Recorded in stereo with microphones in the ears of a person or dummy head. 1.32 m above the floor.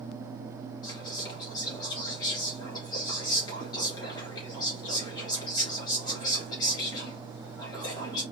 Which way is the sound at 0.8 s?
20° left (ahead or behind).